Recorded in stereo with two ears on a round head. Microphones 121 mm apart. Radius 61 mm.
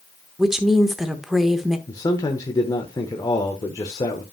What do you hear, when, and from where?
0.4 s a woman speaking: 5° right (ahead or behind), 1.0 m
1.9 s a man speaking: 25° left (ahead or behind), 1.0 m